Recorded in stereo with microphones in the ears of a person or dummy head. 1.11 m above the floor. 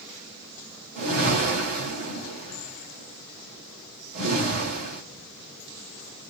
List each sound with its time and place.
0.9 s a whoosh: 50° right (ahead or behind), 2 m